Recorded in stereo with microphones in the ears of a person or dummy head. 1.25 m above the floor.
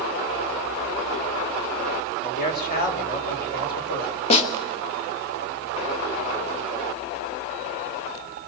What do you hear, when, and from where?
2.2 s a man speaking: 50° left (ahead or behind), 3.5 m
4.3 s a snare drum: 35° left (ahead or behind), 2 m